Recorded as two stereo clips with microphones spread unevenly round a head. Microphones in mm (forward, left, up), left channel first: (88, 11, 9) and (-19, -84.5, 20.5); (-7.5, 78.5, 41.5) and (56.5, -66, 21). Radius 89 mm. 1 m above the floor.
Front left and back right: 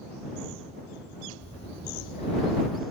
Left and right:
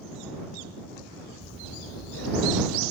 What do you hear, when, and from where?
1.4 s breathing: 100° left